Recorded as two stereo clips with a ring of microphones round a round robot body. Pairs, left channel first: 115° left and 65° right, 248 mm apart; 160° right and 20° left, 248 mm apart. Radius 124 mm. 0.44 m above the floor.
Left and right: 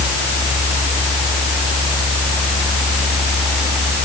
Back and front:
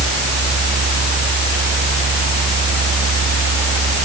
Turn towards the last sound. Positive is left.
No sound to turn to.